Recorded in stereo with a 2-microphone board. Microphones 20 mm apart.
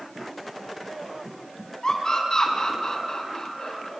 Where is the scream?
30° left (ahead or behind), 5 m; by 3.9 s 25° left (ahead or behind), 4 m.